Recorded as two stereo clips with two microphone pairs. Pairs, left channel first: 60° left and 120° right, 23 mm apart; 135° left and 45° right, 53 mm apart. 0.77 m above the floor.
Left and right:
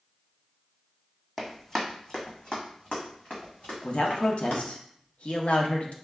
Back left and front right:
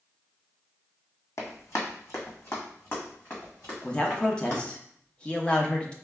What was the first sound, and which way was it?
Running footsteps, 145° left.